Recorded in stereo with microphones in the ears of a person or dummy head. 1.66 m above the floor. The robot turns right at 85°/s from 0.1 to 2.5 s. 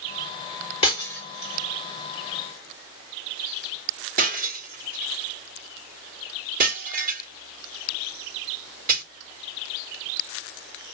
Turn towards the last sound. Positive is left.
turn(degrees=-40)  # may be behind; listen again after turning